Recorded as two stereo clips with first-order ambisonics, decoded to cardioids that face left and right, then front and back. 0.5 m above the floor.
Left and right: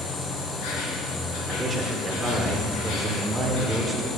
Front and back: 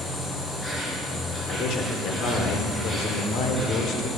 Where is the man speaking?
10° right, 1.6 m.